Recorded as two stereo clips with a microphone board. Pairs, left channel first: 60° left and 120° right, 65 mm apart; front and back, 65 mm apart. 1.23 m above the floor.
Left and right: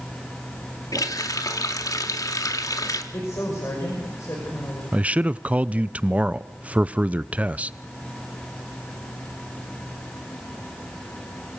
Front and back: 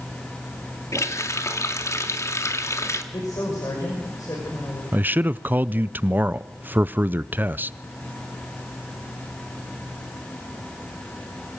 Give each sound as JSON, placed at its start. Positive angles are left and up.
{"t": 0.9, "sound": "a running tap", "azimuth_deg": 40, "distance_m": 1.8}
{"t": 3.1, "sound": "a woman speaking", "azimuth_deg": 20, "distance_m": 6.0}
{"t": 4.9, "sound": "a man speaking", "azimuth_deg": -165, "distance_m": 0.6}